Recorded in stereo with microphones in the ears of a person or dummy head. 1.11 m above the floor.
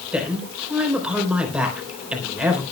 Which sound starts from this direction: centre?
A woman speaking, at 0.1 s.